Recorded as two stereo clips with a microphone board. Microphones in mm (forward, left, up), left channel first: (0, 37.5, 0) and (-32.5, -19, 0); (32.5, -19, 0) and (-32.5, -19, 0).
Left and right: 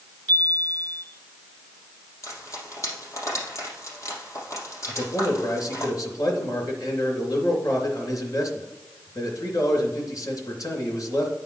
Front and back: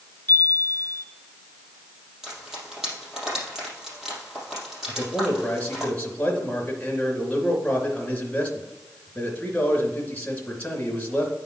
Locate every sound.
0.3 s a chime: 10° left, 1.7 m
2.2 s frying: 100° left, 4 m
4.9 s a man speaking: 70° left, 2.5 m